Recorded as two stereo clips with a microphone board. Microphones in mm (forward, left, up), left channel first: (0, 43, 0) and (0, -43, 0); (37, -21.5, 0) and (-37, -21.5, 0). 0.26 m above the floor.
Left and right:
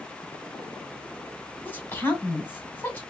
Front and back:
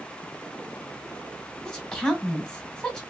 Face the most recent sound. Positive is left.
turn(degrees=65)